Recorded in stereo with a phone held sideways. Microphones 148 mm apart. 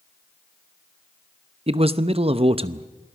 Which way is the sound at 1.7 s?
40° right (ahead or behind).